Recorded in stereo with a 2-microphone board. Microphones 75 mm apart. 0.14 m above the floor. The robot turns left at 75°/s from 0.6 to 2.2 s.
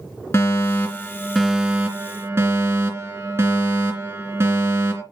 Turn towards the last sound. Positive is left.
turn(degrees=-65)